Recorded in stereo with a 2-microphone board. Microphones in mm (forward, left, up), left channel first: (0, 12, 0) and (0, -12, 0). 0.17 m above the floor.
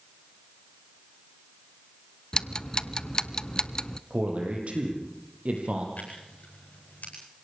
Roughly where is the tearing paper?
Left.